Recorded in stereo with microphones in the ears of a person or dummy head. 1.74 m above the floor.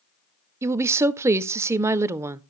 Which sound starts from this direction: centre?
A woman speaking, at 0.6 s.